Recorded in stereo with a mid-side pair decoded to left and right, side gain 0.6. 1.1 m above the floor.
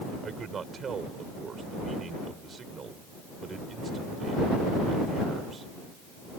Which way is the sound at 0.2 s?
35° right.